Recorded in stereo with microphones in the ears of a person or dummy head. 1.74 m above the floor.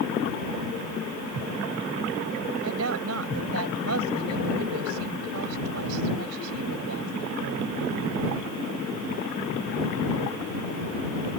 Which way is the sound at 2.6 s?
80° right.